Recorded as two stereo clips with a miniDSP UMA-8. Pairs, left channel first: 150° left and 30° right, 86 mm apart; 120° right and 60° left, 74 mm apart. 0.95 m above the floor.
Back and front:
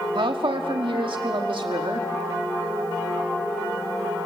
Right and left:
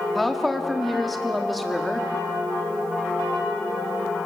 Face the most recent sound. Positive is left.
turn(degrees=-30)